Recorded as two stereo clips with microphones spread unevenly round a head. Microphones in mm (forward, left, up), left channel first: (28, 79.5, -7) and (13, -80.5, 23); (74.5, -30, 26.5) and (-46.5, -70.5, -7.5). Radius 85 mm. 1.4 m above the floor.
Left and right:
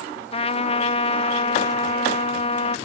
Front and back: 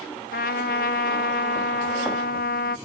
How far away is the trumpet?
About 0.7 m.